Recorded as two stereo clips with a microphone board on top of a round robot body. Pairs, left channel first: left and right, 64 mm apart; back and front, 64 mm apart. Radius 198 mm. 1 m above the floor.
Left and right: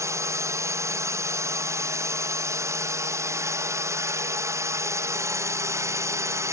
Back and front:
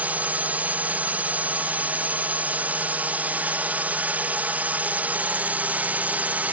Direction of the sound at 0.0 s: 60° right.